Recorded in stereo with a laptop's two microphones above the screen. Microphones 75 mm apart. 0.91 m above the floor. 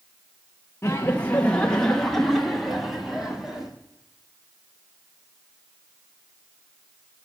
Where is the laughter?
35° left (ahead or behind), 0.7 m; by 3.7 s 5° right (ahead or behind), 1.9 m.